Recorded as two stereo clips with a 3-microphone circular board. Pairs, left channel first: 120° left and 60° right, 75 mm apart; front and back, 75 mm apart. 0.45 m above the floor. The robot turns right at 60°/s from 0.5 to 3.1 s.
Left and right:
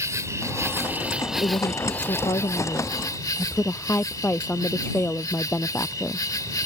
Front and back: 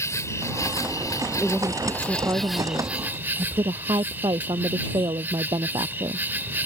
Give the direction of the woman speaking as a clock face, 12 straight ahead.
9 o'clock.